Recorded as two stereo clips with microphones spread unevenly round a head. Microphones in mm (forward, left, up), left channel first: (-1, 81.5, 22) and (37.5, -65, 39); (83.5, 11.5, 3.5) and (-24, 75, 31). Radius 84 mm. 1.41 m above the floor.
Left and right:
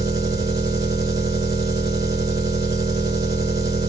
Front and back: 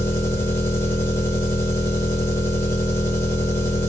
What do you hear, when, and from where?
0.0 s an engine running: 110° right, 0.9 m